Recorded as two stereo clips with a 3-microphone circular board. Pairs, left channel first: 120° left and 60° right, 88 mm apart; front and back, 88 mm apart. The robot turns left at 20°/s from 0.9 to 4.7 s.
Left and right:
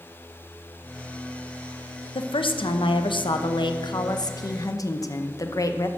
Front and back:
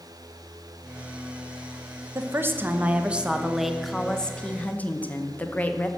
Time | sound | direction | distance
2.1 | a woman speaking | 120° left | 0.7 m